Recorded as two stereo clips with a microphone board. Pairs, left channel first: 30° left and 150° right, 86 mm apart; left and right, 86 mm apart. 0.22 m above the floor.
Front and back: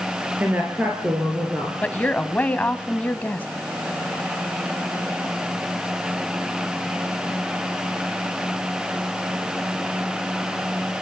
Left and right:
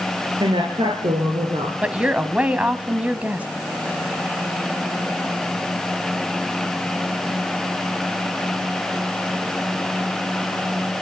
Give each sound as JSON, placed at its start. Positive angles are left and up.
{"t": 0.4, "sound": "a woman speaking", "azimuth_deg": -80, "distance_m": 3.5}
{"t": 1.8, "sound": "a woman speaking", "azimuth_deg": -30, "distance_m": 1.2}